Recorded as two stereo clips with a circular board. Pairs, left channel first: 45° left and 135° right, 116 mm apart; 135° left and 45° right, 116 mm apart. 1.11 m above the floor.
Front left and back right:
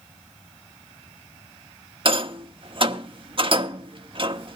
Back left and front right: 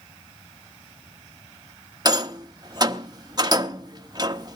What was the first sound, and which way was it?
A rattle, 100° right.